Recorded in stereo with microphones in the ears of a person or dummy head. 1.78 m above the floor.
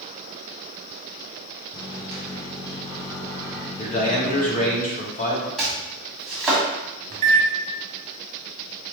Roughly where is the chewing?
I don't hear chewing.